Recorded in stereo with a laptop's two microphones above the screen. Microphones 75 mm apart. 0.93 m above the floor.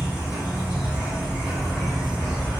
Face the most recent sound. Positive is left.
turn(degrees=-10)  # may be behind; listen again after turning